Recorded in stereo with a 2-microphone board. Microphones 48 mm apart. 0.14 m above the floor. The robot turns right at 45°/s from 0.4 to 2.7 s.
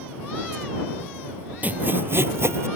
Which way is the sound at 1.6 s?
140° right.